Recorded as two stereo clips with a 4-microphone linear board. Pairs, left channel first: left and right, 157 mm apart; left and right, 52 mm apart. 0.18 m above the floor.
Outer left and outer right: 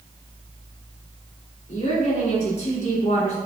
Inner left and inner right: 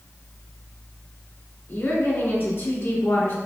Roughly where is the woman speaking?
Left.